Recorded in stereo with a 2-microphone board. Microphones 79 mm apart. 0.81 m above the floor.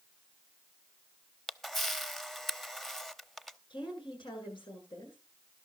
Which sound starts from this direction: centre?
A camera shutter, at 1.5 s.